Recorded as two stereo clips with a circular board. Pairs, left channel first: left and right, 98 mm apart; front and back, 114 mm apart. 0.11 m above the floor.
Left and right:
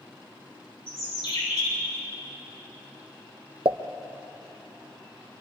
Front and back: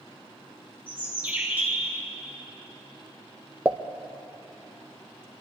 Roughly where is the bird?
Left.